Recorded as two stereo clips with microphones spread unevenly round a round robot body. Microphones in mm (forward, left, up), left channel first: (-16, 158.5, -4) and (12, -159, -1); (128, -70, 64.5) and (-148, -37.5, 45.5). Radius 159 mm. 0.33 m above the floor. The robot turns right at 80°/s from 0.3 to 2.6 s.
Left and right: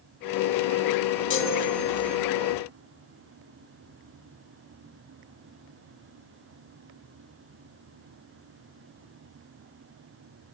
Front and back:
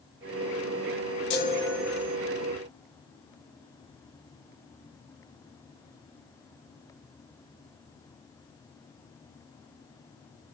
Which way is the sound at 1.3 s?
45° left.